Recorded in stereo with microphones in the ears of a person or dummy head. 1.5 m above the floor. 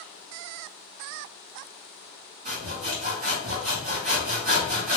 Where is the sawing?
40° right (ahead or behind), 1.8 m.